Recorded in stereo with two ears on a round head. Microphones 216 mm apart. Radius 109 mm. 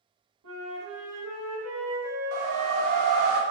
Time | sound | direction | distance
0.4 | a flute | 70° right (ahead or behind) | 1.3 m
2.3 | a whoosh | 60° right (ahead or behind) | 0.5 m